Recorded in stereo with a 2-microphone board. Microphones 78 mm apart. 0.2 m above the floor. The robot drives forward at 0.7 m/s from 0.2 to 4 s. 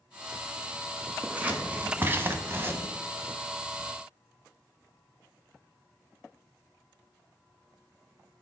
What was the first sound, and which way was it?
Scissors, 15° right (ahead or behind).